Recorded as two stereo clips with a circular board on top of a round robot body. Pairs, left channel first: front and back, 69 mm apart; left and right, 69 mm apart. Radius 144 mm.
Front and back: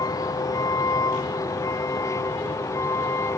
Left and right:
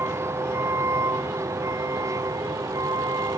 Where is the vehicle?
35° right; by 3.4 s 50° right.